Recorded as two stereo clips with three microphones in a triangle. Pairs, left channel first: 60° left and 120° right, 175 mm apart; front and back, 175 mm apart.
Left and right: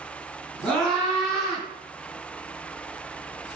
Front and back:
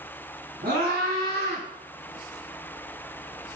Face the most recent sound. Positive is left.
turn(degrees=160)